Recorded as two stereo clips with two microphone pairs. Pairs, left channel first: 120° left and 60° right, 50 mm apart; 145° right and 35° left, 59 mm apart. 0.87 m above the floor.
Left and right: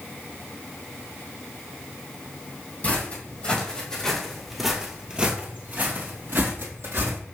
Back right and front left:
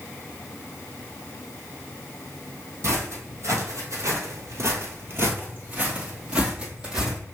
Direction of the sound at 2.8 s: 65° left.